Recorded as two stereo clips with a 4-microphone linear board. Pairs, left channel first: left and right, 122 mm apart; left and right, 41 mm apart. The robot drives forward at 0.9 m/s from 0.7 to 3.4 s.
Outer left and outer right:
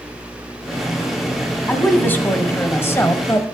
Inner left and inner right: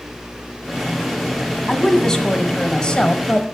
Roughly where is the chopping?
No chopping in this recording.